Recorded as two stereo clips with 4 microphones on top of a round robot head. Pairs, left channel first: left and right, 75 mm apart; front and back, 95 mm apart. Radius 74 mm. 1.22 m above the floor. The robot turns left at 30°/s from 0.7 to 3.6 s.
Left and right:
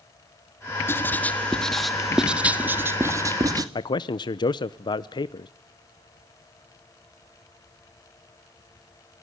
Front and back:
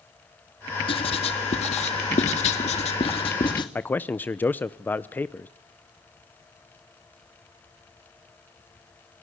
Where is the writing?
30° left, 1.8 m; by 3.6 s 50° right, 1.8 m.